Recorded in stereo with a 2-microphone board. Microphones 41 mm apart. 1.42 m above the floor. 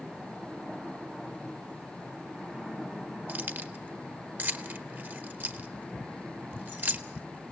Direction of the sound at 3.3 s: 50° right (ahead or behind).